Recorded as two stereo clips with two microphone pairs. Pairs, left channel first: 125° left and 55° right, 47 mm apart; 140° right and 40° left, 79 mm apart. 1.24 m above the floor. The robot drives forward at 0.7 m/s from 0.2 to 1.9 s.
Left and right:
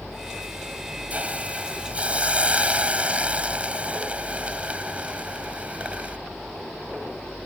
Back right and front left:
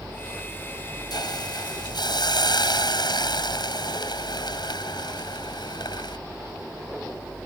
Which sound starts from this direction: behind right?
A hiss, at 1.1 s.